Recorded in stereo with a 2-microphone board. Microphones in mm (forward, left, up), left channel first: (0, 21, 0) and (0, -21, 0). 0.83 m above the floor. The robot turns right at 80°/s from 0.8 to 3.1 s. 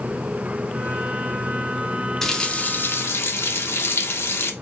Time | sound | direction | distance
2.2 | a running tap | 5° left | 0.7 m